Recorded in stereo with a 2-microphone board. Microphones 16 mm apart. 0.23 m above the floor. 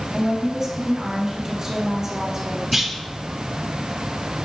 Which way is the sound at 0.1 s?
20° right (ahead or behind).